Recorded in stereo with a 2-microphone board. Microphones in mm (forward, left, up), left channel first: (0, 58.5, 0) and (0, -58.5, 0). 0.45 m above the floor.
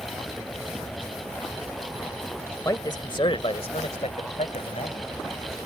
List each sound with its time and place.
2.6 s a man speaking: 30° left (ahead or behind); by 5.6 s 60° left (ahead or behind)